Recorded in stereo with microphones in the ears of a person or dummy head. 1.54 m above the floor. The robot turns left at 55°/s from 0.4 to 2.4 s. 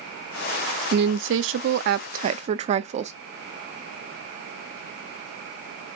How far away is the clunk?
I don't hear a clunk.